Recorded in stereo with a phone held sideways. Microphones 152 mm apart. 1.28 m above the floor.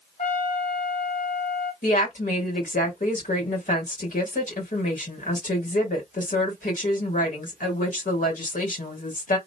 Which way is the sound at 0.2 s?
60° left (ahead or behind).